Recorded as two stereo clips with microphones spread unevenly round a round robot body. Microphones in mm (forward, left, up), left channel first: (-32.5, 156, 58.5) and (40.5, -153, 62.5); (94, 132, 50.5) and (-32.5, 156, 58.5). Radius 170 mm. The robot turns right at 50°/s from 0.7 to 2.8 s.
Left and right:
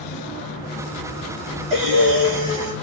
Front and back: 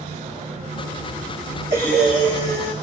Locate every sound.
1.7 s breathing: 150° right, 0.9 m; by 2.7 s 100° right, 0.9 m